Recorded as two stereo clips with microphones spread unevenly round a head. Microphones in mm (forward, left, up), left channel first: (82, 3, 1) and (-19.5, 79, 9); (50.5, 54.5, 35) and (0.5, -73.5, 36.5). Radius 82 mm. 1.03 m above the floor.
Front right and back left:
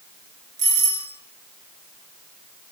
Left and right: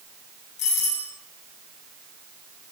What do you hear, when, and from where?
0.6 s a doorbell: 115° left, 8 m